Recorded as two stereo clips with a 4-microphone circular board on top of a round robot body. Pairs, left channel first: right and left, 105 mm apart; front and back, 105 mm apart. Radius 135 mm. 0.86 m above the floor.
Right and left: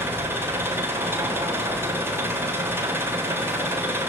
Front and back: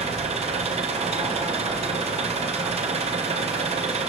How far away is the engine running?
About 3 m.